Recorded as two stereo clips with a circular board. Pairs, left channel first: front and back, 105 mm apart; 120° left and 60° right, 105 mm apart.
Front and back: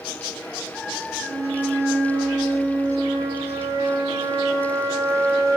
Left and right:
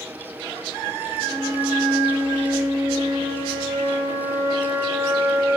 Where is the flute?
125° right, 2.0 m.